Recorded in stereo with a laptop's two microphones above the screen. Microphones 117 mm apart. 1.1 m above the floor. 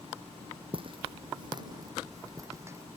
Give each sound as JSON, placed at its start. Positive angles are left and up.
{"t": 0.7, "sound": "footsteps", "side_deg": -50}